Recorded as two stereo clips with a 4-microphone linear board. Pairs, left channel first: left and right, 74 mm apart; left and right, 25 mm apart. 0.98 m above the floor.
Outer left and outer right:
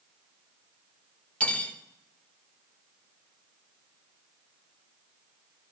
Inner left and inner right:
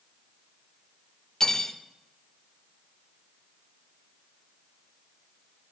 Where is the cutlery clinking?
20° left (ahead or behind), 1.8 m.